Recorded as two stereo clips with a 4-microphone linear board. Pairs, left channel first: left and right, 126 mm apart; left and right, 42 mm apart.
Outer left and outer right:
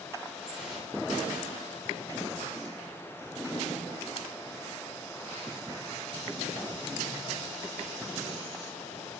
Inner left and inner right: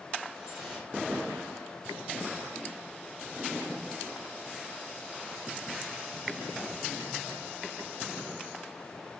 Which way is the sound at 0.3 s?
5° right (ahead or behind).